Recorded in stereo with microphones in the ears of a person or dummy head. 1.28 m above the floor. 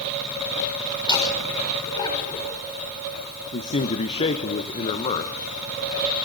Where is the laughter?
25° left (ahead or behind), 6 m.